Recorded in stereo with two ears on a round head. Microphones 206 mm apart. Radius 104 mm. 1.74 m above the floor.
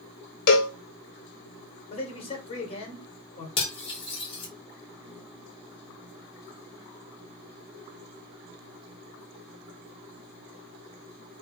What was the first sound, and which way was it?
A cowbell, 45° left (ahead or behind).